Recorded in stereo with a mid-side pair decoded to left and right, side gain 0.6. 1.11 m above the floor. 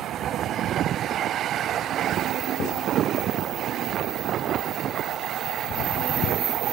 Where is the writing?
60° left, 8 m.